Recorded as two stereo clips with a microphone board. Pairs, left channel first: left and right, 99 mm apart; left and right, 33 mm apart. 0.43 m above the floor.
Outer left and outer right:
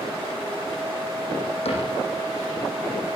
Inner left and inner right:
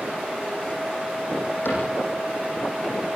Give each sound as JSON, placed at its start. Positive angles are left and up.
{"t": 1.6, "sound": "a cupboard door", "side_deg": 75, "distance_m": 9.5}